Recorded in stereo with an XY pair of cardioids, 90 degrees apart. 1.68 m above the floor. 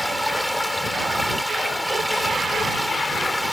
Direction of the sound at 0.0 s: 5° left.